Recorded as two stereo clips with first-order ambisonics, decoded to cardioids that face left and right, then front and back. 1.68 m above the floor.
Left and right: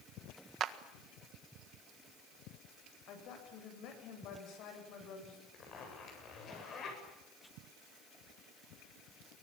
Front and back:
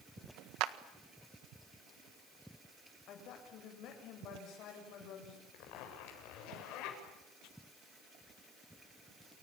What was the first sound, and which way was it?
A clap, 150° right.